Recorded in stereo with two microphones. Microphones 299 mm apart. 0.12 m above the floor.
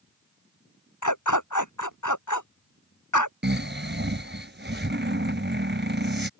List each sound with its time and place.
1.0 s a dog barking: 80° left
3.4 s snoring: 35° right (ahead or behind)